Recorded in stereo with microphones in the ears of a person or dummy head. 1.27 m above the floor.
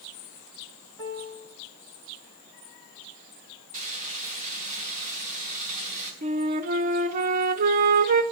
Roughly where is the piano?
Centre.